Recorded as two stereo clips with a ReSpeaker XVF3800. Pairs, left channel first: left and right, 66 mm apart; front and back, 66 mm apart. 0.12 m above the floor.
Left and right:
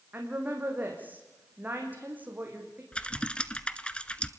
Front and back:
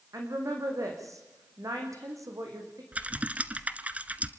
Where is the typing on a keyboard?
140° left, 1.0 m.